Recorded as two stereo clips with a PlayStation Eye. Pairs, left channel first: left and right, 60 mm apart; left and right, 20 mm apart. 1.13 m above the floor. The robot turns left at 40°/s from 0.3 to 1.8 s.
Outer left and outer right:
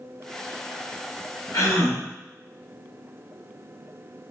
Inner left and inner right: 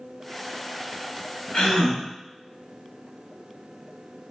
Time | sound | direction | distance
1.5 | a gasp | 85° left | 2.0 m